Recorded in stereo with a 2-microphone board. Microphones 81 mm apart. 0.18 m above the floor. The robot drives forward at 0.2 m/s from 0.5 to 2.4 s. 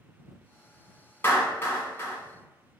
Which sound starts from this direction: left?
A clap, at 1.2 s.